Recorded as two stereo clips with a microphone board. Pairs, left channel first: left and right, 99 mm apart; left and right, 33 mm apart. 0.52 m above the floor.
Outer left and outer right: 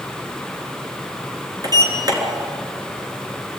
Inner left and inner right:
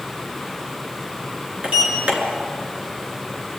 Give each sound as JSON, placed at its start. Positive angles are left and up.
{"t": 1.6, "sound": "a sliding door", "side_deg": -40, "distance_m": 4.0}